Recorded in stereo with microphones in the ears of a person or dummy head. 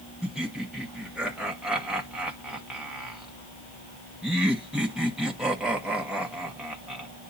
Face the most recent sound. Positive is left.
turn(degrees=-5)  # may be behind; listen again after turning